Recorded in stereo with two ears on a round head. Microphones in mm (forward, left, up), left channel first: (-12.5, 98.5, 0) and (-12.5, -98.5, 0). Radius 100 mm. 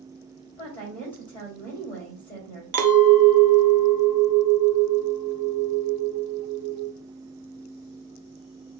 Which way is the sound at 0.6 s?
10° left (ahead or behind).